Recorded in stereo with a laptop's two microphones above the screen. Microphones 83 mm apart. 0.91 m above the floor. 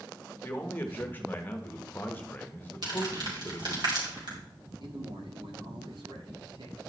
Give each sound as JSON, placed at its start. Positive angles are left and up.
{"t": 0.4, "sound": "a man speaking", "side_deg": 25, "distance_m": 1.0}
{"t": 2.8, "sound": "crumpling", "side_deg": -60, "distance_m": 3.5}
{"t": 4.8, "sound": "a man speaking", "side_deg": -75, "distance_m": 1.8}